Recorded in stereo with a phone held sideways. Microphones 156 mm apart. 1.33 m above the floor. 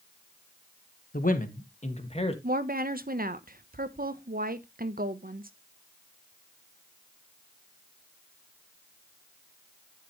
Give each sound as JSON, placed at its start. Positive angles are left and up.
{"t": 1.1, "sound": "a man speaking", "side_deg": 65, "distance_m": 1.4}
{"t": 2.4, "sound": "a woman speaking", "side_deg": -70, "distance_m": 0.9}